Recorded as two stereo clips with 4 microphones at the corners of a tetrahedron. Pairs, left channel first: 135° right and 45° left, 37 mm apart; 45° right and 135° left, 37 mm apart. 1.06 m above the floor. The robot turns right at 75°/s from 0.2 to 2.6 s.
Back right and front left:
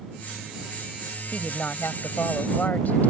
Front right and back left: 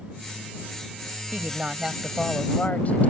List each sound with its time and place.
1.3 s a woman speaking: 170° left; by 3.1 s 90° right